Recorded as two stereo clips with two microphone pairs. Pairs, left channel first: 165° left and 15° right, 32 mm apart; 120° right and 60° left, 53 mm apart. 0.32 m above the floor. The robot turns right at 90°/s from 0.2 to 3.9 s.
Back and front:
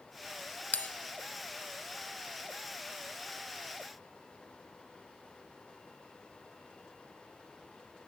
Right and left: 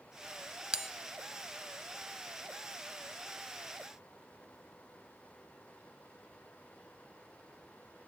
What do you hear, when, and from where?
0.7 s a bell: 130° left, 0.5 m; by 0.9 s 145° left, 0.5 m